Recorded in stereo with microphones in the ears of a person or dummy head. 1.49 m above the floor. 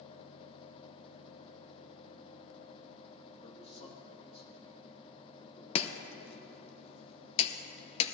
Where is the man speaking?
50° left (ahead or behind), 2.5 m; by 6.8 s 25° left (ahead or behind), 4 m.